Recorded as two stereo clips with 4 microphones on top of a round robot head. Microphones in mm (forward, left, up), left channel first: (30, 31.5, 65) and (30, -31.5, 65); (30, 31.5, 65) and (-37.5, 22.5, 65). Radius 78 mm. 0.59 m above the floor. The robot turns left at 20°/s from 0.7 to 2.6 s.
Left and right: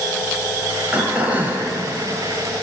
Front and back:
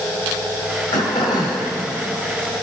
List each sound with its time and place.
0.9 s throat clearing: 15° right, 2.5 m; by 1.7 s 35° right, 2.5 m